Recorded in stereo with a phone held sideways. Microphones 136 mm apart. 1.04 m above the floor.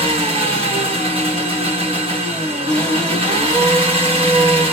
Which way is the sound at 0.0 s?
45° right (ahead or behind).